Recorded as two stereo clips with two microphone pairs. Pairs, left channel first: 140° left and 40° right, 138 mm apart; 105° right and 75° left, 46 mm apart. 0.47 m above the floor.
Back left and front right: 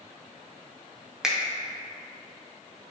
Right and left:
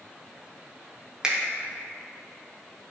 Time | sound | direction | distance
1.2 | a finger snap | 25° left | 0.5 m